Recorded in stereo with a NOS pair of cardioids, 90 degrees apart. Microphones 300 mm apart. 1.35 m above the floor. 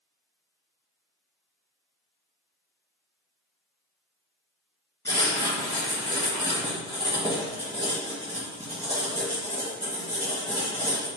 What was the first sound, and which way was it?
Writing, 10° left.